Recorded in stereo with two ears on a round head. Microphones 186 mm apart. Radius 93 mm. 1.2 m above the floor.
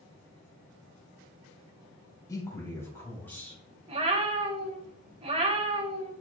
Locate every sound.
2.3 s a man speaking: 15° left (ahead or behind), 3 m; by 3.6 s 5° left (ahead or behind), 3.5 m
3.9 s a cat meowing: 30° right (ahead or behind), 1.1 m